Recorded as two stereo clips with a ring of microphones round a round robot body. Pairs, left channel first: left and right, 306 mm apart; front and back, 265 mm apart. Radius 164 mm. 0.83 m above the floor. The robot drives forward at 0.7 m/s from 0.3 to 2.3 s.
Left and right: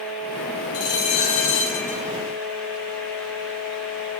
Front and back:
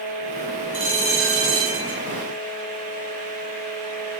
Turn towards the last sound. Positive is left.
turn(degrees=145)